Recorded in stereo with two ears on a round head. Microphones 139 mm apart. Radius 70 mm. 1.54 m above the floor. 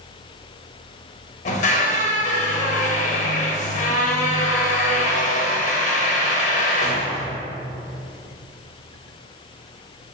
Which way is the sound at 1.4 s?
50° left (ahead or behind).